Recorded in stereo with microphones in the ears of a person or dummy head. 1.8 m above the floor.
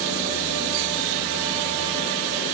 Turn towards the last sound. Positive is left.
No sound to turn to.